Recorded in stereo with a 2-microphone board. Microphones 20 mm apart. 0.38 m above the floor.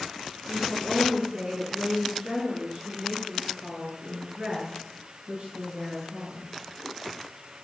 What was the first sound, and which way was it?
A woman speaking, 40° right (ahead or behind).